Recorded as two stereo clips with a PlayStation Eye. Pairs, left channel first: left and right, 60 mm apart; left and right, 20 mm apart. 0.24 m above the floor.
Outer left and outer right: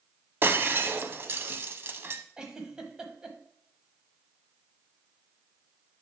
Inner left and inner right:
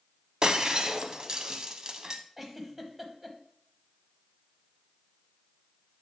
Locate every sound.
0.4 s breaking glass: 40° right (ahead or behind), 0.6 m
2.4 s a giggle: 15° right (ahead or behind), 1.1 m